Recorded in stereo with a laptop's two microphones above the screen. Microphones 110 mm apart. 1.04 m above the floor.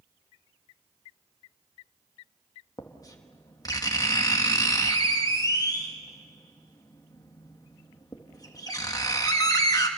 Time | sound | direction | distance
2.8 | writing | 35° left (ahead or behind) | 1.5 m